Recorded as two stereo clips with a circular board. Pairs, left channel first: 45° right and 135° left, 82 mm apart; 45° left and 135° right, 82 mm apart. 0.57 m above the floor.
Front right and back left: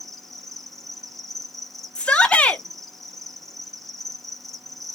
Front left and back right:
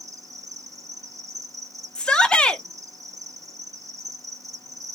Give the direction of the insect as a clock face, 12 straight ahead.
4 o'clock.